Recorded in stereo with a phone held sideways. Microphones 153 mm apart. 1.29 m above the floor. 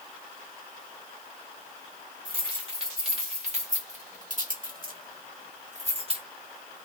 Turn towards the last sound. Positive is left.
turn(degrees=-35)  # may be behind; listen again after turning